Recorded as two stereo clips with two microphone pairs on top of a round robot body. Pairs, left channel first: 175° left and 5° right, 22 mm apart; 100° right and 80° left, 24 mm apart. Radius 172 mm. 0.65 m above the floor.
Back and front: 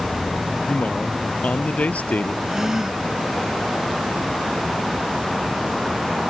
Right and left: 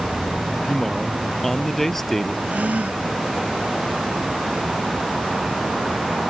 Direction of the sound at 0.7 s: Straight behind.